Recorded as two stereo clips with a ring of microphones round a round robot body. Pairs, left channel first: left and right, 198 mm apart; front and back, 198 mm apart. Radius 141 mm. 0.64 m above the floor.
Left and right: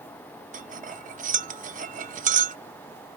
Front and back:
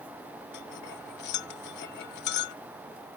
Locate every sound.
0.5 s cutlery clinking: 40° right